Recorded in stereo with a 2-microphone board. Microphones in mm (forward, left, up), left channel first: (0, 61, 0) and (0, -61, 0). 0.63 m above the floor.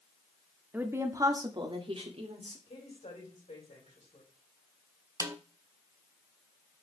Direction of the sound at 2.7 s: 75° left (ahead or behind).